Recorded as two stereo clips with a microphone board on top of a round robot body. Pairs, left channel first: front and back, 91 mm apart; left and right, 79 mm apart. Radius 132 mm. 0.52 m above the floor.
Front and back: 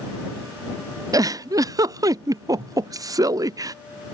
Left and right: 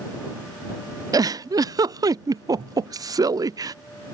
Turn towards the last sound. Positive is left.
turn(degrees=-130)